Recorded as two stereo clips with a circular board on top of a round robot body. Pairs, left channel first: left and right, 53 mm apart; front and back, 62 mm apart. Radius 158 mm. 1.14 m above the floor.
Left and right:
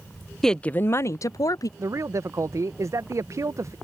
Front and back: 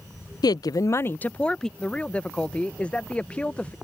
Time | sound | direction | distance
0.4 | a woman speaking | 5° left | ?
1.8 | a man speaking | 70° right | ?